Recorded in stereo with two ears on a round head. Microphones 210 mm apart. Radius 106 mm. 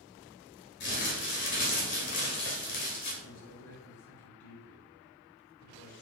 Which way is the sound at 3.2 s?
70° left (ahead or behind).